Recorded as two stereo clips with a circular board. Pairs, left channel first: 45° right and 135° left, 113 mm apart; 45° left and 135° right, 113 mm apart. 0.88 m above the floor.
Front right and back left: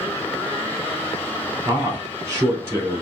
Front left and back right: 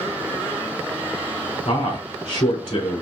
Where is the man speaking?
70° left, 3 m.